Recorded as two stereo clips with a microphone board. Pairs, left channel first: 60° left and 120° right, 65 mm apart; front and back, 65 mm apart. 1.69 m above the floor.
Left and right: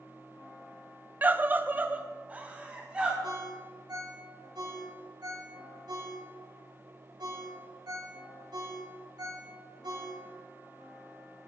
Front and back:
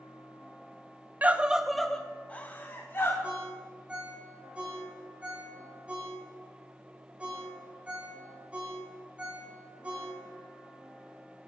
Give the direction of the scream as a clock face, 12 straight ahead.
5 o'clock.